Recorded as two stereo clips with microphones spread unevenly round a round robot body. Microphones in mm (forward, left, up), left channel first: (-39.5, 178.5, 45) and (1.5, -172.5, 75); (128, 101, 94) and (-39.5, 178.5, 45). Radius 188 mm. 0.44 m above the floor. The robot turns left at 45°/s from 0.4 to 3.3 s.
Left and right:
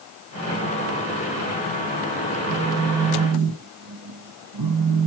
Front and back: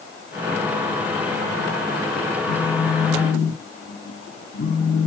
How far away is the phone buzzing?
About 1.1 m.